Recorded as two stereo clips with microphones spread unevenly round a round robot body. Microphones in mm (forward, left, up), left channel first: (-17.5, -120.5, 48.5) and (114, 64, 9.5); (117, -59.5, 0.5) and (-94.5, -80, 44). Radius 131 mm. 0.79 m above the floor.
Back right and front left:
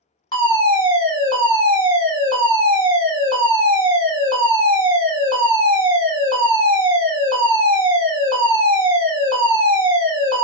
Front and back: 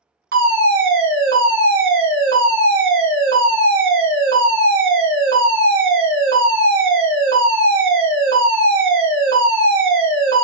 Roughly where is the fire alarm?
Behind.